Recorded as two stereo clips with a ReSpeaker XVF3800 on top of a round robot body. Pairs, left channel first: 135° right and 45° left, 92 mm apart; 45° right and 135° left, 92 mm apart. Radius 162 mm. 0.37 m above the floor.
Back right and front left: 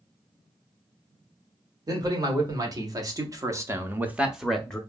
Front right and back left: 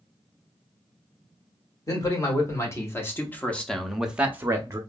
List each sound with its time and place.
1.9 s a man speaking: 5° left, 1.7 m; by 4.8 s 150° left, 0.9 m